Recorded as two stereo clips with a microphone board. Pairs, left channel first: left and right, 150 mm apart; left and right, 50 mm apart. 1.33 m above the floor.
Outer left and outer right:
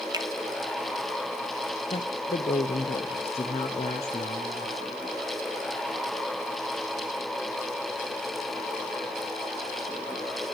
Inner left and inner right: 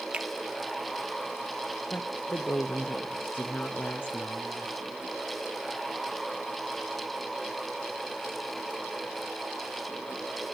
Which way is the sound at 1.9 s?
45° left (ahead or behind).